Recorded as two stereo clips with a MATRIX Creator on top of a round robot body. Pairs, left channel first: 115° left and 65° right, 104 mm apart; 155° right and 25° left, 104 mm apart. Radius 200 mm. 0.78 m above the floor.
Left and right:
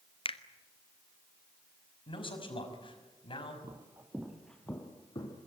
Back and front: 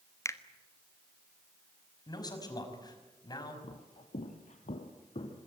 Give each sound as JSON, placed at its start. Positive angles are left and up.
{"t": 0.2, "sound": "a finger snap", "azimuth_deg": 140, "distance_m": 1.5}
{"t": 2.1, "sound": "a man speaking", "azimuth_deg": 150, "distance_m": 5.5}
{"t": 3.6, "sound": "footsteps", "azimuth_deg": -125, "distance_m": 2.0}